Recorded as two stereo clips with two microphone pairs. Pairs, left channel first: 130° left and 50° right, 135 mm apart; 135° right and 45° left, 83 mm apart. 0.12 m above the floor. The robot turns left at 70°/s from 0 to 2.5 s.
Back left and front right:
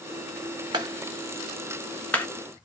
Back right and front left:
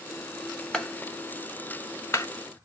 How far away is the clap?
About 1.0 m.